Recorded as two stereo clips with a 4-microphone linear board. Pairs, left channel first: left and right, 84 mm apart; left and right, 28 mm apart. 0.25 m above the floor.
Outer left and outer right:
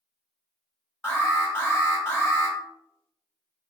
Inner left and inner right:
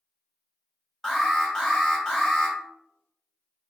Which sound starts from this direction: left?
An alarm, at 1.0 s.